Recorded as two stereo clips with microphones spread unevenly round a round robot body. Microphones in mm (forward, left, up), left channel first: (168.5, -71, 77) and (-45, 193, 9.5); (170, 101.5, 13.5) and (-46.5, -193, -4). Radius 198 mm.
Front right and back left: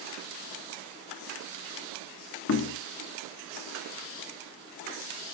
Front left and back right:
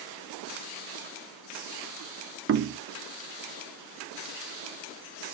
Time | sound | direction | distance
2.5 | knocking | 95° right | 0.6 m